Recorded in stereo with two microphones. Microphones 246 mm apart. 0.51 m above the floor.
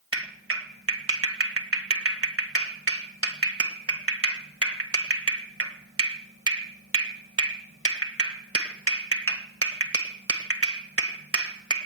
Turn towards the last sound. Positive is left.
turn(degrees=-70)  # may be behind; listen again after turning